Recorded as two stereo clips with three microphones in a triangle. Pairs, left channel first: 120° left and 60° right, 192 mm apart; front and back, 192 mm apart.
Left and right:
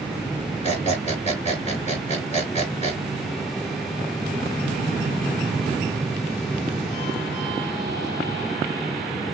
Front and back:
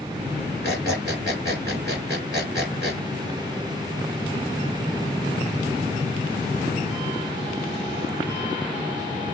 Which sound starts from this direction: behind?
A squeak, at 0.6 s.